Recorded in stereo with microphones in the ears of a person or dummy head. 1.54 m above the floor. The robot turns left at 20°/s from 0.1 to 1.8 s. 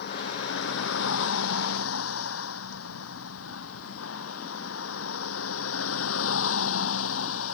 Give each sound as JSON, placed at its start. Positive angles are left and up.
{"t": 0.0, "sound": "a vehicle", "side_deg": 60}